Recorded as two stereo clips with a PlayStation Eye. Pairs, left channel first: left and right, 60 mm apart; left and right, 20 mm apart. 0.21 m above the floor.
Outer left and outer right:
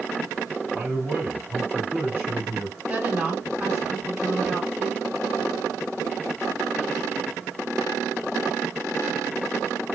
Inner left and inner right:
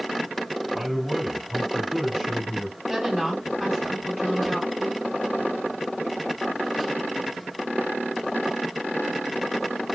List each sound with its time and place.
0.7 s a man speaking: 30° right (ahead or behind), 1.6 m
2.9 s a woman speaking: 20° right (ahead or behind), 2 m